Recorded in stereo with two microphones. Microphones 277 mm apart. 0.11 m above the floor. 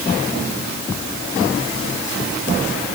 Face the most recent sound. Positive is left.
No sound to turn to.